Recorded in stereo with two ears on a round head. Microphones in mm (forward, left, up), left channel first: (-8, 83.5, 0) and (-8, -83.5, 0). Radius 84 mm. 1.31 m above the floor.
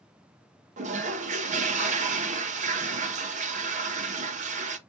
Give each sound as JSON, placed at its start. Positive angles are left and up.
{"t": 0.8, "sound": "a toilet flushing", "side_deg": -40, "distance_m": 0.7}